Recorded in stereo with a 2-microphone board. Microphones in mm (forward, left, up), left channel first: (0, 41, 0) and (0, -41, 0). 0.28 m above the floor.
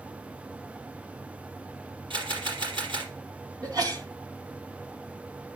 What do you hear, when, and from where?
2.1 s a camera shutter: 75° right (ahead or behind), 4 m
3.6 s a sneeze: 50° right (ahead or behind), 2.5 m